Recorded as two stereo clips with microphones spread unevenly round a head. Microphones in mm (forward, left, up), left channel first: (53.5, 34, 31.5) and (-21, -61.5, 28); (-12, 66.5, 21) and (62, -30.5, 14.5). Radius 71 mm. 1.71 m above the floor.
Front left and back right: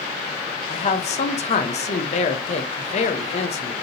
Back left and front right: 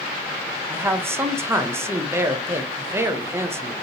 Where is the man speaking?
15° left, 0.8 m.